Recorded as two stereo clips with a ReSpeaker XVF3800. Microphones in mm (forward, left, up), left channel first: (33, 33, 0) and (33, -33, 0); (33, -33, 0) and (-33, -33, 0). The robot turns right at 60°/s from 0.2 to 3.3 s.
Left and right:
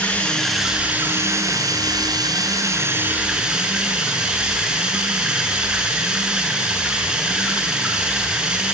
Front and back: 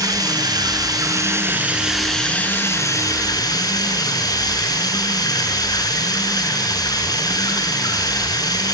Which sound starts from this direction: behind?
Running water, at 0.0 s.